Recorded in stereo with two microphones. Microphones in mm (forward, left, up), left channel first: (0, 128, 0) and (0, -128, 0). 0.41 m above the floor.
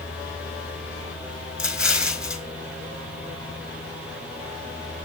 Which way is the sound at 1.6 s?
5° right (ahead or behind).